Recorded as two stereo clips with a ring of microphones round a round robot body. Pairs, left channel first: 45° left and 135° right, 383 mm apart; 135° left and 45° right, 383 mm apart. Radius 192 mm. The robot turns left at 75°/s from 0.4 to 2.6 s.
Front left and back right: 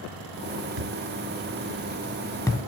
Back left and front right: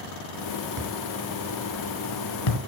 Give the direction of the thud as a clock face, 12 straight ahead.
4 o'clock.